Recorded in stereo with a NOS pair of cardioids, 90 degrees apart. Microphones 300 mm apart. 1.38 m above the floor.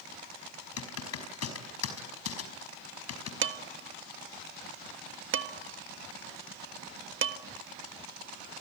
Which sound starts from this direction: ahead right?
Dishes clattering, at 3.4 s.